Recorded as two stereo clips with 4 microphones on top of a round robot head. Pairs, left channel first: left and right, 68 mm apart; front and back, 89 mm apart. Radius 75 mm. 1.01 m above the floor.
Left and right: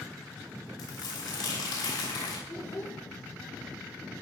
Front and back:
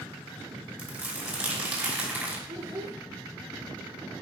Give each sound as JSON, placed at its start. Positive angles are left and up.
{"t": 0.8, "sound": "crumpling", "azimuth_deg": 115, "distance_m": 5.5}
{"t": 2.5, "sound": "a child speaking", "azimuth_deg": 145, "distance_m": 2.5}